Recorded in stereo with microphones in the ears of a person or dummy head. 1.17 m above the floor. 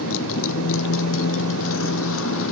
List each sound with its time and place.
0.0 s a motorcycle: 75° left (ahead or behind)